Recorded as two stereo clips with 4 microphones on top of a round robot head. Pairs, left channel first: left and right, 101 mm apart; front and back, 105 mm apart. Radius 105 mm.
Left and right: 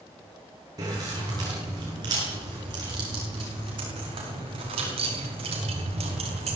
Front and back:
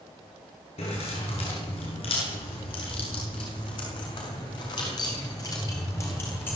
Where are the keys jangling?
30° right, 8.5 m; by 6.6 s 75° right, 4 m.